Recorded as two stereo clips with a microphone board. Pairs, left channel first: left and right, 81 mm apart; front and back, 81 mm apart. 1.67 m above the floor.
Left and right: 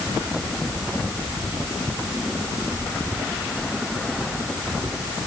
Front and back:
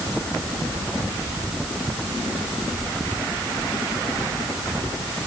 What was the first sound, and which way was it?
Only background noise.